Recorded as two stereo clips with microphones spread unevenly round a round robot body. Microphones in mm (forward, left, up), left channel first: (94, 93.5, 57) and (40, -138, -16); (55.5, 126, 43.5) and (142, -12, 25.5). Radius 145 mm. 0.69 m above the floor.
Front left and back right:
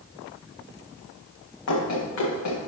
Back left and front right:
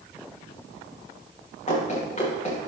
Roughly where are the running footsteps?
Left.